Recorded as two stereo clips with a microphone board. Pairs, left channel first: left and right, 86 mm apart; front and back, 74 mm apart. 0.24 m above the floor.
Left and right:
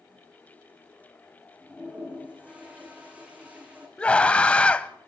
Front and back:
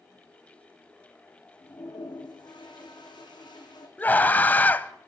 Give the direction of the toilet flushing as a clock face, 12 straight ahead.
12 o'clock.